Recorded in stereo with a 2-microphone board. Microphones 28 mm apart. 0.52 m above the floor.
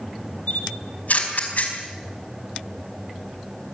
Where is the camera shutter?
55° left (ahead or behind), 4.5 m.